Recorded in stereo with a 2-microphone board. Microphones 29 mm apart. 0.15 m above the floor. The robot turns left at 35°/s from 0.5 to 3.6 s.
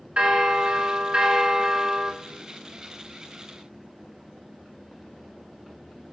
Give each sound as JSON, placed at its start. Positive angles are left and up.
{"t": 0.2, "sound": "a bell", "azimuth_deg": -90, "distance_m": 0.7}